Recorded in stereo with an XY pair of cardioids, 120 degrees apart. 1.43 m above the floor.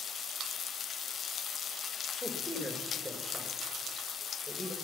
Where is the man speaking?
5° left, 2.0 m.